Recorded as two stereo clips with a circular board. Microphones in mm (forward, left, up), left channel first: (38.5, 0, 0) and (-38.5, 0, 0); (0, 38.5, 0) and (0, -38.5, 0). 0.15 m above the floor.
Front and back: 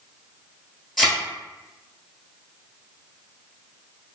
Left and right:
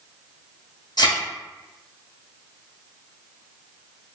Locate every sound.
1.0 s a thud: 85° left, 1.5 m